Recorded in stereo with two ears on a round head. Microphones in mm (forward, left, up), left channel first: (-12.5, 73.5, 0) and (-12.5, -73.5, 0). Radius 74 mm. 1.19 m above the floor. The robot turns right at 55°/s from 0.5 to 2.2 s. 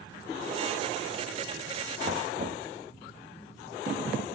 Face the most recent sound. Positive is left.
turn(degrees=-50)  # may be behind; listen again after turning